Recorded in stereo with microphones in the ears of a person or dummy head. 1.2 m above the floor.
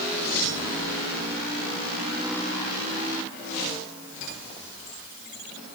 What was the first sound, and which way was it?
Only background noise.